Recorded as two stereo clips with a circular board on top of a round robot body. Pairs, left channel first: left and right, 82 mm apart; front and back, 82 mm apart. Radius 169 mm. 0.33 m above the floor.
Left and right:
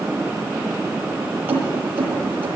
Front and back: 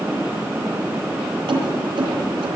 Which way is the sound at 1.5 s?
155° right.